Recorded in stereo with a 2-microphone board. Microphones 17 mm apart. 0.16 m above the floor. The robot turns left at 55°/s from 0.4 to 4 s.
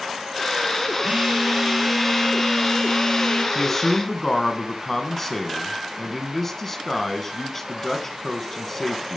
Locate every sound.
1.0 s a phone buzzing: 120° right, 1.6 m; by 3.5 s 110° left, 1.6 m
3.5 s a man speaking: 20° left (ahead or behind), 1.1 m; by 9.2 s 15° left (ahead or behind), 1.1 m